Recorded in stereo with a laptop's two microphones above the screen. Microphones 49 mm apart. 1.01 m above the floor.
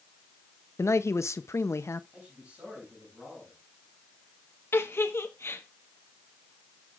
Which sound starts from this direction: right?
A man speaking, at 2.1 s.